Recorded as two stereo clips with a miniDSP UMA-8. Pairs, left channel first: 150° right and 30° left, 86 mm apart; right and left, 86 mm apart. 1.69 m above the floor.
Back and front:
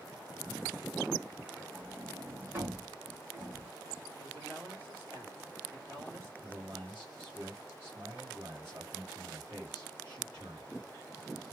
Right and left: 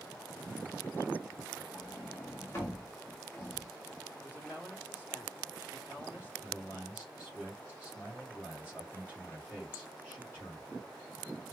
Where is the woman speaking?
25° right, 4 m.